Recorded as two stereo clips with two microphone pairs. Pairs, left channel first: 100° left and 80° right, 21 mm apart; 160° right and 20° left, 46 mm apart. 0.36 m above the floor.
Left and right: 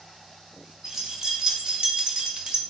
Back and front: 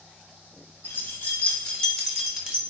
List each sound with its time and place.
0.8 s keys jangling: 145° right, 1.5 m; by 2.6 s 35° right, 1.2 m